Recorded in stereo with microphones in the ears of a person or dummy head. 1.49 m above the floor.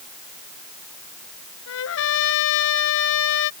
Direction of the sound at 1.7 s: 75° left (ahead or behind).